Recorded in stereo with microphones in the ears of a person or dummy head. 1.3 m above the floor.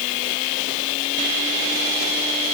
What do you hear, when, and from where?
Only background noise.